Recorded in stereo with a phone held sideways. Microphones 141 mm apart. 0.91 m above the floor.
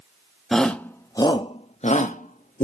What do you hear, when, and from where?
0.5 s a shout: centre (ahead or behind), 0.9 m; by 2.6 s 75° left (ahead or behind), 1.1 m